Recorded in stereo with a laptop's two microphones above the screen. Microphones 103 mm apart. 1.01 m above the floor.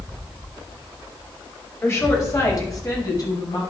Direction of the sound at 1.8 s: 25° left (ahead or behind).